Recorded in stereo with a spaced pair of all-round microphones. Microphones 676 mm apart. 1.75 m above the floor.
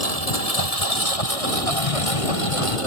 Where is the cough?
55° left (ahead or behind).